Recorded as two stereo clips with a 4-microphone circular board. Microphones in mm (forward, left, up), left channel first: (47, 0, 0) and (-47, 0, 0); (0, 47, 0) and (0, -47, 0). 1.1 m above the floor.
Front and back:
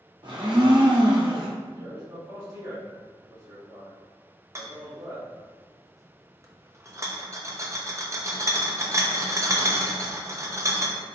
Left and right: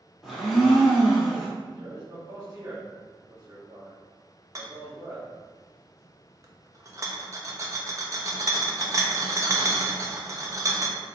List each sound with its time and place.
0.2 s a blender: straight behind, 1.1 m
1.7 s a man speaking: 150° right, 1.8 m
4.5 s a rattle: 135° right, 0.6 m